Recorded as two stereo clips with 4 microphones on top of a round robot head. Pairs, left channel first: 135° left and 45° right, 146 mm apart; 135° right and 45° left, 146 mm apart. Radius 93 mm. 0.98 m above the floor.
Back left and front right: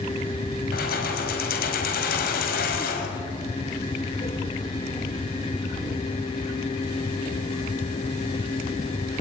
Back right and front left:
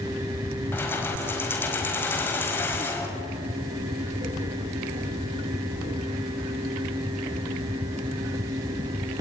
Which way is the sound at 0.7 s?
150° left.